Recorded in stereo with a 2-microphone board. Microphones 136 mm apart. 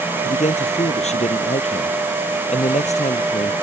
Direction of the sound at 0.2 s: 55° left (ahead or behind).